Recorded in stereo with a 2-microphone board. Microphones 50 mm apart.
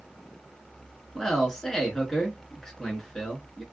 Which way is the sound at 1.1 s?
10° left (ahead or behind).